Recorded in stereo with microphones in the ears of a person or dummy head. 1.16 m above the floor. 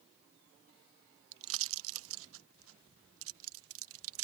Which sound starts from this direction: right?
A pop, at 1.3 s.